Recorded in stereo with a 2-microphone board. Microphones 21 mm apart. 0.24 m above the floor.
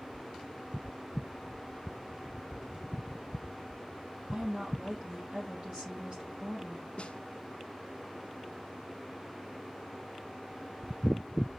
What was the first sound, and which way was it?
A woman speaking, 55° right (ahead or behind).